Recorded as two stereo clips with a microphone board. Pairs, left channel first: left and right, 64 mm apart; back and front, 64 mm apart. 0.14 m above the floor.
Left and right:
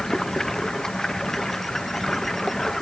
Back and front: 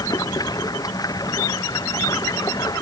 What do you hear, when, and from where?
0.0 s running water: 170° left